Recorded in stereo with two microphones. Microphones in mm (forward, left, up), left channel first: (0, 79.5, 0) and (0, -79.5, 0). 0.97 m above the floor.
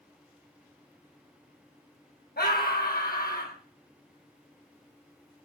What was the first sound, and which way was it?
A scream, 80° left.